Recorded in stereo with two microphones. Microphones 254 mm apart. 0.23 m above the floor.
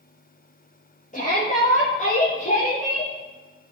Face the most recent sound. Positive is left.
turn(degrees=25)  # may be behind; listen again after turning